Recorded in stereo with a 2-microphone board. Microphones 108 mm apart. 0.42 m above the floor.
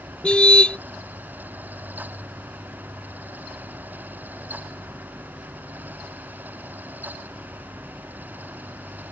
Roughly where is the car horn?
Centre.